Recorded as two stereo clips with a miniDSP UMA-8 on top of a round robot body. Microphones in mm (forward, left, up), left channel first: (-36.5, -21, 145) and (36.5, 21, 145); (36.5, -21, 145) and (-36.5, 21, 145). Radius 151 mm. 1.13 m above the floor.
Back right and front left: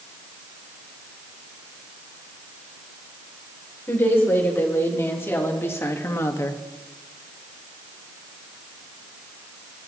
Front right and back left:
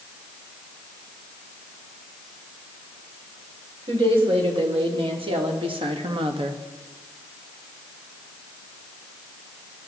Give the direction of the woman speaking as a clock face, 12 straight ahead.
7 o'clock.